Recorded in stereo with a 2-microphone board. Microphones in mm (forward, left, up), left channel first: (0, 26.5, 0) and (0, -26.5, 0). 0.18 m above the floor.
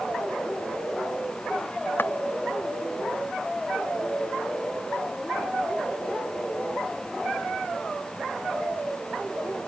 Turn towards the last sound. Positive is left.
turn(degrees=45)  # may be behind; listen again after turning